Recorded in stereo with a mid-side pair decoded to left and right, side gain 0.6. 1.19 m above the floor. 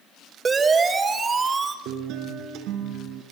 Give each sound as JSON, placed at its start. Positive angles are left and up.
{"t": 0.5, "sound": "a siren", "azimuth_deg": -30, "distance_m": 4.5}
{"t": 1.9, "sound": "a guitar", "azimuth_deg": -70, "distance_m": 5.0}